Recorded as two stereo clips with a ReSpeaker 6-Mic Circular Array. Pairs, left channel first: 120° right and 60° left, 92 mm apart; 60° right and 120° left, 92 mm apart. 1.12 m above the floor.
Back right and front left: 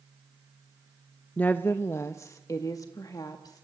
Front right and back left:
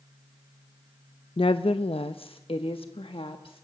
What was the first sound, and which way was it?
A woman speaking, 45° right.